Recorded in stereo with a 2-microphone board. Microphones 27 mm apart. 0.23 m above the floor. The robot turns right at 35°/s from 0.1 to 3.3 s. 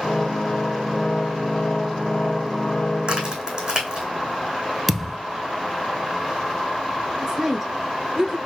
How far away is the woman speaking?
About 1.4 m.